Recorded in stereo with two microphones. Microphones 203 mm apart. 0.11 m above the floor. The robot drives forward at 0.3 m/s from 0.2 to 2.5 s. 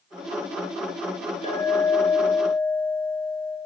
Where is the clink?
30° left (ahead or behind), 0.7 m.